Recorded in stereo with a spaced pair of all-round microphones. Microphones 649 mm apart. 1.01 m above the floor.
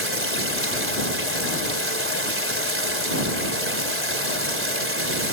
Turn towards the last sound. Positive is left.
turn(degrees=-20)  # may be behind; listen again after turning